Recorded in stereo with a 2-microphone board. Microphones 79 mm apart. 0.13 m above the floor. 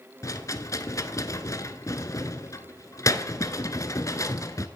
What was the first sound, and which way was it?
A rattle, 45° left (ahead or behind).